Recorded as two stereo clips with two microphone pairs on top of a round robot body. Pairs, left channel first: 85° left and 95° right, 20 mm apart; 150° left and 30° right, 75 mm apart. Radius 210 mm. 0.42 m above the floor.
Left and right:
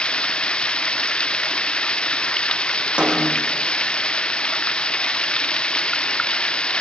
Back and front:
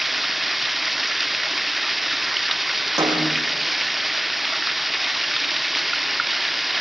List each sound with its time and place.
0.0 s running water: 60° left, 1.0 m
3.0 s a snare drum: 75° right, 8 m